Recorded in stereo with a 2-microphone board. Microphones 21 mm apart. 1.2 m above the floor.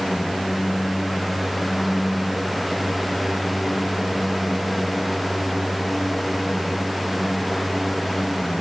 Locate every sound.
Only background noise.